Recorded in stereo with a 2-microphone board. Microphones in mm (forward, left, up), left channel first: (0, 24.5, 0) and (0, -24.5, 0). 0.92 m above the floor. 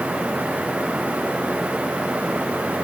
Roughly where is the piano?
No piano in this recording.